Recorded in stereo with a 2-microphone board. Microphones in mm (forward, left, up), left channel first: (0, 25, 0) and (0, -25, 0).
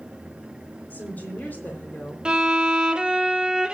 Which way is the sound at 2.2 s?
15° right (ahead or behind).